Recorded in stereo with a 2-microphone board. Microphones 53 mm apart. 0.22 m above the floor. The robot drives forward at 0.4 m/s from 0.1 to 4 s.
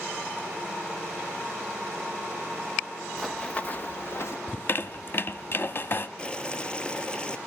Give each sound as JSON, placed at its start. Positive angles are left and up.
{"t": 3.2, "sound": "running footsteps", "side_deg": 0, "distance_m": 1.1}
{"t": 4.5, "sound": "a squeak", "side_deg": 45, "distance_m": 0.5}
{"t": 6.2, "sound": "boiling", "side_deg": 20, "distance_m": 0.9}